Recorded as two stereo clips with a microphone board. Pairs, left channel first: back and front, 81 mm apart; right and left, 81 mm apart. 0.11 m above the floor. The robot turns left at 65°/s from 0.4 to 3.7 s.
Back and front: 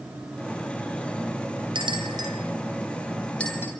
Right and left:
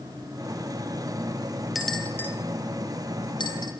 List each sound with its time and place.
1.8 s a bell: 5° left, 8.5 m; by 3.7 s 120° right, 8.5 m